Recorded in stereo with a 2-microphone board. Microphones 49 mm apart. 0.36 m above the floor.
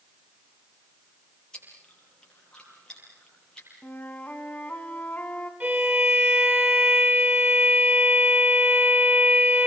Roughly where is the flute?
Left.